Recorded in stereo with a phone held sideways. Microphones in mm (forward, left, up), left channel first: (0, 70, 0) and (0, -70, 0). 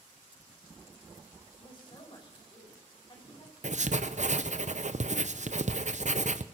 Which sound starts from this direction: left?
A woman speaking, at 1.6 s.